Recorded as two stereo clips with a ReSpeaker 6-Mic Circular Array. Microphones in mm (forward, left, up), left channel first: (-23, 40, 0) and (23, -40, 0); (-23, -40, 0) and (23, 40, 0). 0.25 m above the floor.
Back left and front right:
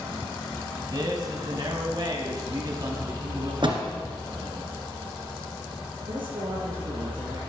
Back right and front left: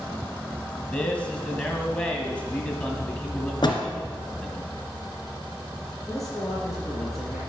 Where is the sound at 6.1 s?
30° right, 7 m.